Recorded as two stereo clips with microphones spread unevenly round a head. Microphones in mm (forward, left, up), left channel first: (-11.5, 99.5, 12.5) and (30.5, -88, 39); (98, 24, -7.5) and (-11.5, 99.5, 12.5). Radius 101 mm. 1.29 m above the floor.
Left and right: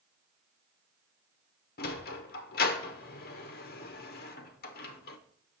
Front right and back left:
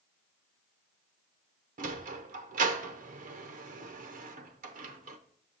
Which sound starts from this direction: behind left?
A sliding door, at 1.8 s.